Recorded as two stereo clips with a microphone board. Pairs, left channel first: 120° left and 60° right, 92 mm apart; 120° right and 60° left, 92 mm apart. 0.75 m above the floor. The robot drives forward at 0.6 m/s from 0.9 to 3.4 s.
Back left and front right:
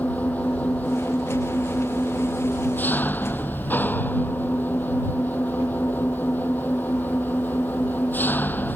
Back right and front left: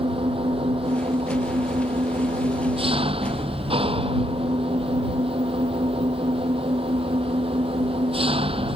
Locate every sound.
0.0 s an engine running: 45° left; by 8.8 s 50° left